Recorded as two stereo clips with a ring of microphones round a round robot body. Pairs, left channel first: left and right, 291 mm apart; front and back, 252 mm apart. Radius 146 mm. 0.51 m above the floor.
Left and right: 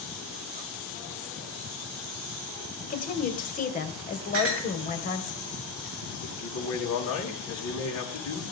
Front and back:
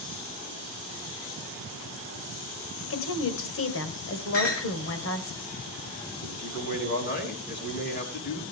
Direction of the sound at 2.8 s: 30° left.